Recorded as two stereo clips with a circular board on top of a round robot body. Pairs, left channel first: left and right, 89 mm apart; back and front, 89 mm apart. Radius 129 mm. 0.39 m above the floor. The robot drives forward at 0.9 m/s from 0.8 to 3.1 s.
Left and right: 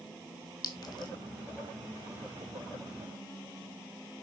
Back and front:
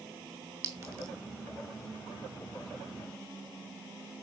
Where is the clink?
50° left, 2.0 m; by 1.1 s 60° left, 1.8 m.